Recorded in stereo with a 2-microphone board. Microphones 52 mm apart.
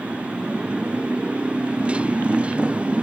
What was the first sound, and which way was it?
A motorcycle, 20° right (ahead or behind).